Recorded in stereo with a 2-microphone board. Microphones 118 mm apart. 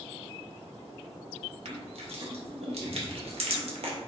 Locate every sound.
1.6 s crushing: 65° right (ahead or behind), 0.7 m